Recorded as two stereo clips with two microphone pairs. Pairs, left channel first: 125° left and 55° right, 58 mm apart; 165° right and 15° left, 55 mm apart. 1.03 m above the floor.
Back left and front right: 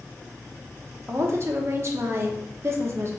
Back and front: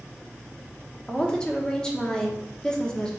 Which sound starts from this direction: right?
A woman speaking, at 1.1 s.